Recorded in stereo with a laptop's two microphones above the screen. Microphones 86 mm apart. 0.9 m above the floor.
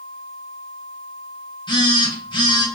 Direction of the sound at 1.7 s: 65° left (ahead or behind).